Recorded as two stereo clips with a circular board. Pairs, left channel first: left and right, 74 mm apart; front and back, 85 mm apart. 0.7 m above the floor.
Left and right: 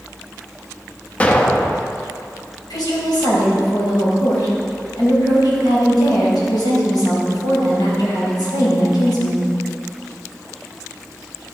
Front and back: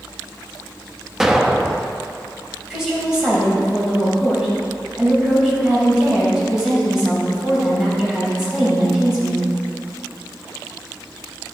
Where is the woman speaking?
100° left, 4 m.